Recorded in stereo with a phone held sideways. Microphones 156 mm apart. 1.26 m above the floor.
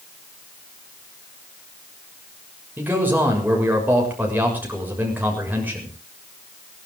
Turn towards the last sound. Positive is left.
turn(degrees=-10)  # may be behind; listen again after turning